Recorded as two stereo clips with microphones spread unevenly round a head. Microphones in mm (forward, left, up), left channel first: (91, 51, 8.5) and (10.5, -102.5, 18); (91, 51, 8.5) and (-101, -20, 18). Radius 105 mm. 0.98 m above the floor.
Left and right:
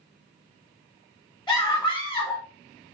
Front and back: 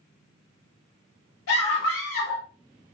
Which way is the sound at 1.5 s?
5° right.